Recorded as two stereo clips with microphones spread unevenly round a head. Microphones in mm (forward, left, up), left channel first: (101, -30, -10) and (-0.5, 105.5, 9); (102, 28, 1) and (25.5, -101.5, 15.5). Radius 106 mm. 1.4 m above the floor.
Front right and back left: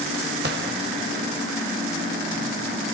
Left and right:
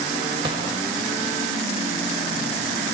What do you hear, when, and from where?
0.4 s a gunshot: 170° left, 1.6 m